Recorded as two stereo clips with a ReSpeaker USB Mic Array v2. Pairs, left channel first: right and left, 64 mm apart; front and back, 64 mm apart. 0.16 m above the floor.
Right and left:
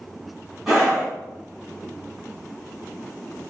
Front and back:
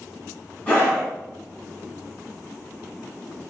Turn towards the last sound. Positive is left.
turn(degrees=20)